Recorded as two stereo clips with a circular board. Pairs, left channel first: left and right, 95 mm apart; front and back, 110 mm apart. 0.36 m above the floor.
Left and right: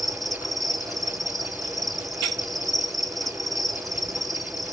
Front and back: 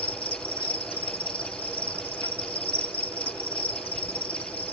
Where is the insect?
Straight ahead, 1.1 m.